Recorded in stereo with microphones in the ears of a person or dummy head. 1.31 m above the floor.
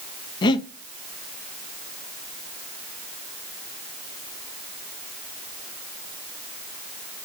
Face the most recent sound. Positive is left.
turn(degrees=30)  # may be behind; listen again after turning